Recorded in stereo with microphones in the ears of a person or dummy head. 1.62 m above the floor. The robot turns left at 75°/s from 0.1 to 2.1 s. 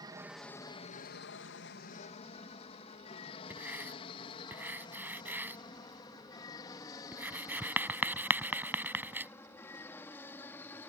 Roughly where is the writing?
Centre.